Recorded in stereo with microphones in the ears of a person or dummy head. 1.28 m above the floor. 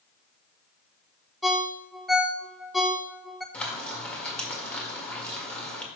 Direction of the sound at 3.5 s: 5° left (ahead or behind).